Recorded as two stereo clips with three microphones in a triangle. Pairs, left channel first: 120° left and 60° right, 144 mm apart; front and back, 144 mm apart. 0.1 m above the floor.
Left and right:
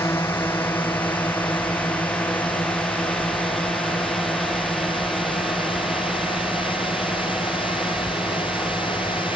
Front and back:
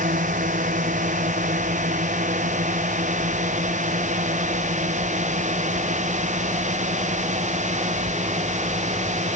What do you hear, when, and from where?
0.0 s a drone: 165° right; by 9.4 s 145° right